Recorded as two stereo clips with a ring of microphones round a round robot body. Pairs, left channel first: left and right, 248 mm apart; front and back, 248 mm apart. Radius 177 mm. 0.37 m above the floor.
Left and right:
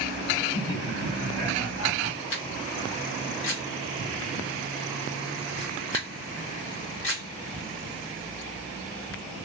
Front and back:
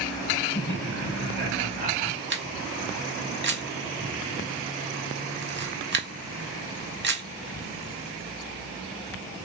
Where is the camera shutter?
140° left, 1.8 m.